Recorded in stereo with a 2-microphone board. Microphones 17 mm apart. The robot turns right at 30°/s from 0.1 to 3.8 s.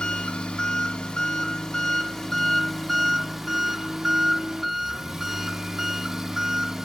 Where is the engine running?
90° left, 1.9 m; by 6.8 s 160° right, 1.9 m.